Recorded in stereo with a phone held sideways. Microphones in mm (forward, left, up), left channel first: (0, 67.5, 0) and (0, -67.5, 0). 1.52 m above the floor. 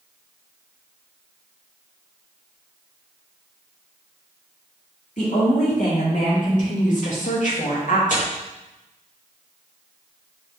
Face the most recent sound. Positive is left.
turn(degrees=70)  # may be behind; listen again after turning